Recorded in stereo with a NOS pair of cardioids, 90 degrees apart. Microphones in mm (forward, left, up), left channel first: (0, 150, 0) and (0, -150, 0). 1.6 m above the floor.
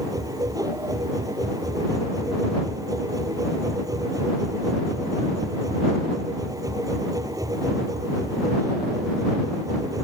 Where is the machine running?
10° right.